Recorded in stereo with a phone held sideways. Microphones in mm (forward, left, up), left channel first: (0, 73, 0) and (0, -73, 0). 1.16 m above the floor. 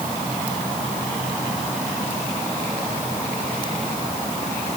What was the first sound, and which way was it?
Only background noise.